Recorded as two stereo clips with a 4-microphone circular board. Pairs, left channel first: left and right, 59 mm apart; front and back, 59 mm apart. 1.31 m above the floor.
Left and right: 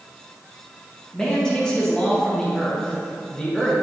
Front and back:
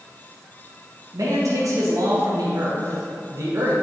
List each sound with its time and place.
1.1 s a man speaking: 170° left, 1.3 m